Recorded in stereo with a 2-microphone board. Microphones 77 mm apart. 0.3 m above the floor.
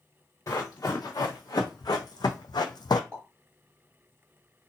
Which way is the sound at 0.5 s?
45° left (ahead or behind).